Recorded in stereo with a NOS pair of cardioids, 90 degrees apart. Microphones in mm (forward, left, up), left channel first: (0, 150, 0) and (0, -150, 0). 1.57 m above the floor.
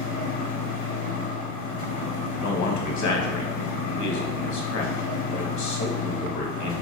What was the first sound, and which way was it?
A machine running, 50° left.